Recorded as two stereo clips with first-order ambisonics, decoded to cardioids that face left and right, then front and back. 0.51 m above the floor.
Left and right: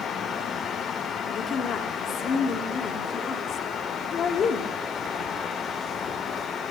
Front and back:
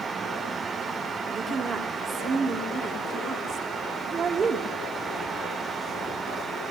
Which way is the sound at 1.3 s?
115° left.